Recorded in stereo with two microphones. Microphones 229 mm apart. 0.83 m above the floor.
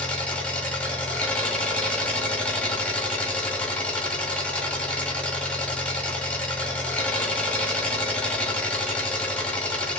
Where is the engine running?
5° left (ahead or behind), 1.5 m.